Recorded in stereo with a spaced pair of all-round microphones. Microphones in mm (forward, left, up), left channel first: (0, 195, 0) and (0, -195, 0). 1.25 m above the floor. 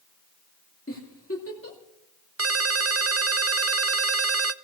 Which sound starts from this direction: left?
A giggle, at 0.9 s.